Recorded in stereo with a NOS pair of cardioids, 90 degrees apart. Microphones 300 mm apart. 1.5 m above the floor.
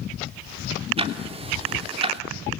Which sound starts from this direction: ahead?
Ticking, at 1.0 s.